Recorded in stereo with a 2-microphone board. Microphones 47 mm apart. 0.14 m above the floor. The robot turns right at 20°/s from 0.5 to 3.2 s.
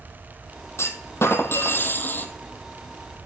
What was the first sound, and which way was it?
A clunk, 110° left.